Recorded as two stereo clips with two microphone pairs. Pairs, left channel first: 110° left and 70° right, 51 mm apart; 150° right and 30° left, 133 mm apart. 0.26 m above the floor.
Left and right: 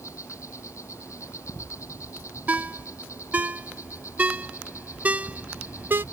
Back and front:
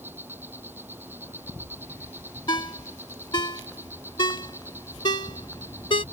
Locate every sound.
0.0 s an insect: 105° left
2.5 s a ringtone: 110° right